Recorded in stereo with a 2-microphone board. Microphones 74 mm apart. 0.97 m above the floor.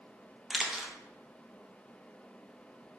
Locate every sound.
0.5 s a camera shutter: 10° right (ahead or behind), 0.6 m